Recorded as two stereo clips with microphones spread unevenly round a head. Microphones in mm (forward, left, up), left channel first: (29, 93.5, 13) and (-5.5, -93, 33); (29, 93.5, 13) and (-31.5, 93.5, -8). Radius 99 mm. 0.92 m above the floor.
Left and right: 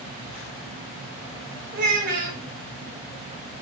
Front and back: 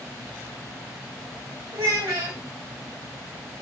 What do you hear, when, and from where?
1.7 s a child speaking: 145° right, 1.6 m